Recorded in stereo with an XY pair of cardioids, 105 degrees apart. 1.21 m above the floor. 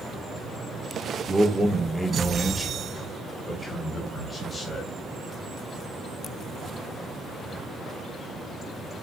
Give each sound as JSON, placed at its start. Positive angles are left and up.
{"t": 1.3, "sound": "a man speaking", "azimuth_deg": -20, "distance_m": 1.5}